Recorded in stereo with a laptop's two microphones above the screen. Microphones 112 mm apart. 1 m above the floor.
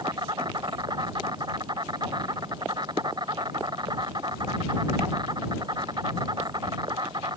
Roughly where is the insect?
Right.